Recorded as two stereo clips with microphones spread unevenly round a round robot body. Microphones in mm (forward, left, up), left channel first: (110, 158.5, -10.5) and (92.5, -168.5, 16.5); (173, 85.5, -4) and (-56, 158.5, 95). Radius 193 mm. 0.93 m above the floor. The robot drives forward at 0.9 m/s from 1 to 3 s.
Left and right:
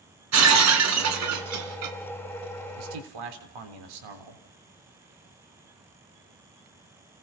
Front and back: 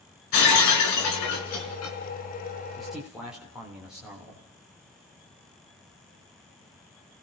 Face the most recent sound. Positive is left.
turn(degrees=-105)